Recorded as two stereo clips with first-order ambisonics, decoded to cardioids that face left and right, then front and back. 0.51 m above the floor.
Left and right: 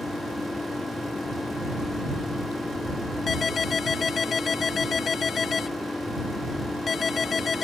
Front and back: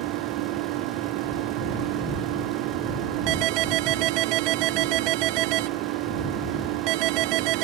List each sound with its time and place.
0.0 s an engine running: 170° left
3.3 s a ringtone: 155° left